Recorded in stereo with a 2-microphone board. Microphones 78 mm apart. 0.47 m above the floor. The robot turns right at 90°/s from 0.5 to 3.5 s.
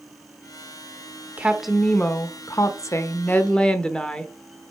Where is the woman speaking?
30° right, 0.9 m; by 4.3 s 165° left, 0.9 m.